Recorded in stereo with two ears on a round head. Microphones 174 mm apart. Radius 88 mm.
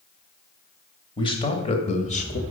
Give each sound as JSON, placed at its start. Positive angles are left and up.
{"t": 1.2, "sound": "a man speaking", "side_deg": 25, "distance_m": 2.5}